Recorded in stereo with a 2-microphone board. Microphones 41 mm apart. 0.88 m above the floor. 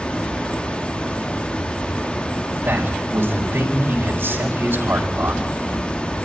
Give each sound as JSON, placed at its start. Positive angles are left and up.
{"t": 0.0, "sound": "running water", "side_deg": 25, "distance_m": 0.8}
{"t": 2.6, "sound": "a man speaking", "side_deg": -75, "distance_m": 4.0}